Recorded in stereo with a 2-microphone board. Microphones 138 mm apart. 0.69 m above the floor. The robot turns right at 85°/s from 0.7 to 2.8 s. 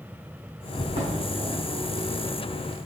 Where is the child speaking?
No child speaking in this recording.